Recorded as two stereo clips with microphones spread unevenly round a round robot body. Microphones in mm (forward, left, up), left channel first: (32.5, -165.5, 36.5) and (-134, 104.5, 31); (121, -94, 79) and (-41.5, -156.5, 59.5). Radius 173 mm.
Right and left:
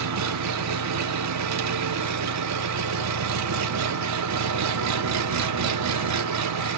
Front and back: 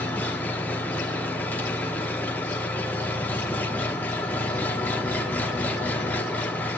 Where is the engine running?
105° left, 1.0 m.